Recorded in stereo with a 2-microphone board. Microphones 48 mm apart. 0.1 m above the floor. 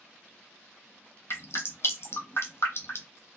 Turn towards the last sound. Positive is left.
turn(degrees=55)  # may be behind; listen again after turning